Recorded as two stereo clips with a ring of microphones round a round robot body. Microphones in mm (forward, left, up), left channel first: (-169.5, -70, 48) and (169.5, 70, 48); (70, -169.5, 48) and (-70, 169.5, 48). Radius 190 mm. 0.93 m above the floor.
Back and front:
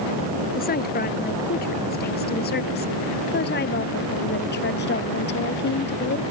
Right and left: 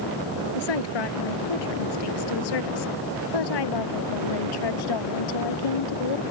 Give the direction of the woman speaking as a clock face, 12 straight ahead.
3 o'clock.